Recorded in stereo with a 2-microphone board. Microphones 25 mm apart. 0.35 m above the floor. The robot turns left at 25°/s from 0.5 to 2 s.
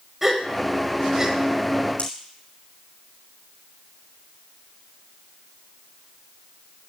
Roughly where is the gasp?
Centre.